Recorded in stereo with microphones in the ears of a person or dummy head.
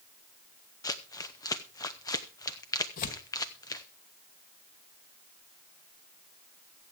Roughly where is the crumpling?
Centre.